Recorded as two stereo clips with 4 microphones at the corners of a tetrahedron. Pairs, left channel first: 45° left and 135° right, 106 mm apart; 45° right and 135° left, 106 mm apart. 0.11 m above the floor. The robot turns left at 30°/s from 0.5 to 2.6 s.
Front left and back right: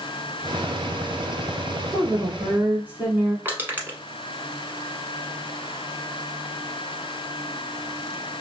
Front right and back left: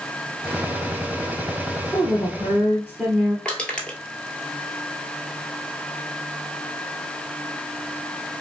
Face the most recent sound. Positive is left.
turn(degrees=-110)